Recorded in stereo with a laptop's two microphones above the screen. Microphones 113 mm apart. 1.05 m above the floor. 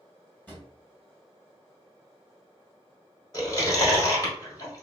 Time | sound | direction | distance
0.5 | a drawer | 15° left (ahead or behind) | 1.7 m
3.3 | chewing | 35° left (ahead or behind) | 1.6 m